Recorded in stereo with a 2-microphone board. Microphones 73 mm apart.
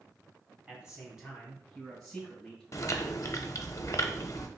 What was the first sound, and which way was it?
A man speaking, 15° right (ahead or behind).